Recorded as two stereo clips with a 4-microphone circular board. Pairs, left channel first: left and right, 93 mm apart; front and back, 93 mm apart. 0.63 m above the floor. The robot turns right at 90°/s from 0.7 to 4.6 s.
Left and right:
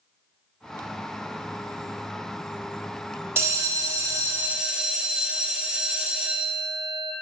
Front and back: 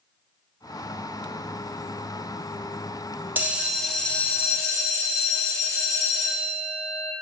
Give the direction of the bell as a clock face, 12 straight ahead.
4 o'clock.